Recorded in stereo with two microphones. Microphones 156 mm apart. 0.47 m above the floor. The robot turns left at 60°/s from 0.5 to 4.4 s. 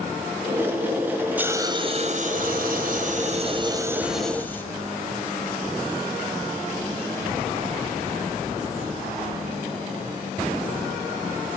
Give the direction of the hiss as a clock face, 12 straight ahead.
12 o'clock.